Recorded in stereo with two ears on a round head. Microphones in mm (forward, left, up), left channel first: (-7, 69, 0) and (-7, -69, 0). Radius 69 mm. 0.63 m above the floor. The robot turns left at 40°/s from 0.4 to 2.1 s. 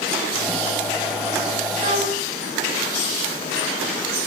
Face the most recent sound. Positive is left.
turn(degrees=-55)  # may be behind; listen again after turning